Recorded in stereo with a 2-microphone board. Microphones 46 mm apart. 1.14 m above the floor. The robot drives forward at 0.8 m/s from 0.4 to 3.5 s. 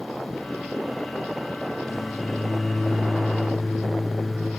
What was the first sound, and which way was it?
A microwave, 5° left (ahead or behind).